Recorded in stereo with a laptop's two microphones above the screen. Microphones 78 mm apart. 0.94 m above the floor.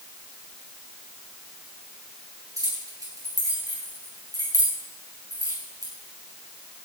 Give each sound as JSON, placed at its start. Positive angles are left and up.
{"t": 2.6, "sound": "keys jangling", "side_deg": -45, "distance_m": 7.0}